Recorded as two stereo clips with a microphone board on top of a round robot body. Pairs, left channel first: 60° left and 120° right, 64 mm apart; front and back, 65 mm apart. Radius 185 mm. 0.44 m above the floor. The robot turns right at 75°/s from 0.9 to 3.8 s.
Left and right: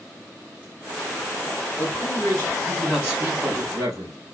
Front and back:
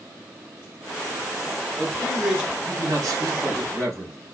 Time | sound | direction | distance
1.8 | a man speaking | 75° left | 3 m